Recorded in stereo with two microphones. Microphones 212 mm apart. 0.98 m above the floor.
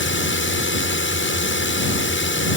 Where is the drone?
65° left (ahead or behind).